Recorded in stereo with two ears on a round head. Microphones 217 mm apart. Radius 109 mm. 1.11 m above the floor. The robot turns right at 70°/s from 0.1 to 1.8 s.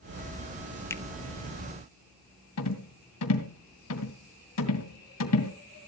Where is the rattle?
70° left (ahead or behind), 2.5 m.